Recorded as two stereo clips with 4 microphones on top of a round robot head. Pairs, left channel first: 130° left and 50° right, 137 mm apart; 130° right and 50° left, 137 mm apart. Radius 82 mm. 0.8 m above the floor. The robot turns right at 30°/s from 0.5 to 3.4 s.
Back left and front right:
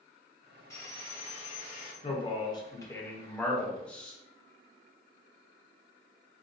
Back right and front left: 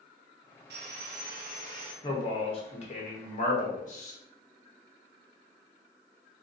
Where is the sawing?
60° left, 0.9 m; by 1.9 s 95° left, 0.9 m.